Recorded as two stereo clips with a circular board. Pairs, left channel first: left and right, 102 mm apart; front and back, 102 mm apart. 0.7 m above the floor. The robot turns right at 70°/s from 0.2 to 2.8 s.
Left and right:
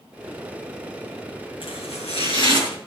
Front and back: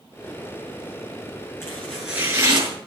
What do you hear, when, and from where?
1.6 s chopping: 65° left, 6.5 m; by 2.8 s 145° left, 6.5 m